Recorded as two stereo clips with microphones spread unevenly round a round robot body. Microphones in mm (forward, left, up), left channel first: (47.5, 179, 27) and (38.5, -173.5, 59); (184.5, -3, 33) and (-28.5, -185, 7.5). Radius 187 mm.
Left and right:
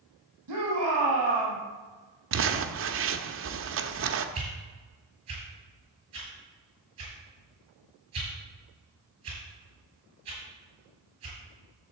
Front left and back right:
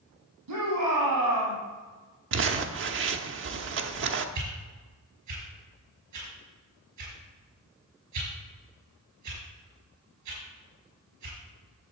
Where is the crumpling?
140° right, 0.8 m.